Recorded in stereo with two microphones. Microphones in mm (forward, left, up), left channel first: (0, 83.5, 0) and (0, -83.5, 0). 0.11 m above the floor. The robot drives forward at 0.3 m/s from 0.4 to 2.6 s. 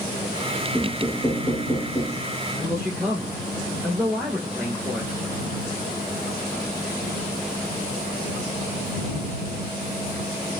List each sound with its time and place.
0.7 s knocking: 15° left (ahead or behind), 0.9 m
2.5 s a man speaking: 10° right (ahead or behind), 1.8 m